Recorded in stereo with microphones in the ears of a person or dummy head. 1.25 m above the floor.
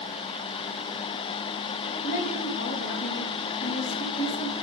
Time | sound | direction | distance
2.0 | a woman speaking | 45° left (ahead or behind) | 1.3 m